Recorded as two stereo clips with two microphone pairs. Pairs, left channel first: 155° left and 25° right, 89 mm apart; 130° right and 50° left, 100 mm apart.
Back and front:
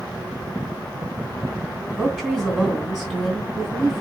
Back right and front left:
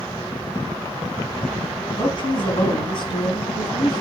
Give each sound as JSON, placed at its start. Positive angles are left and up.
{"t": 1.9, "sound": "a woman speaking", "azimuth_deg": -110, "distance_m": 2.5}